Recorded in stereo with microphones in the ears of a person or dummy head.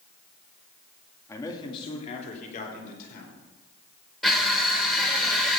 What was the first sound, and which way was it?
A man speaking, 15° left (ahead or behind).